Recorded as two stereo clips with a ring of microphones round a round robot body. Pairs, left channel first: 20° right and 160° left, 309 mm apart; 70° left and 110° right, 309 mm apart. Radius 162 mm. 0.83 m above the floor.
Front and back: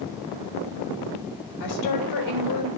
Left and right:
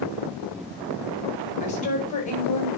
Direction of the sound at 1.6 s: Straight ahead.